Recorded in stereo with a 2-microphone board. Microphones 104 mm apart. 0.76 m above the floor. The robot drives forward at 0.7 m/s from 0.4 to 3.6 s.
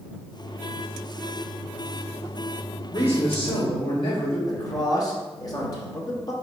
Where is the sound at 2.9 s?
60° left (ahead or behind), 1.4 m; by 4.4 s 50° left (ahead or behind), 1.6 m.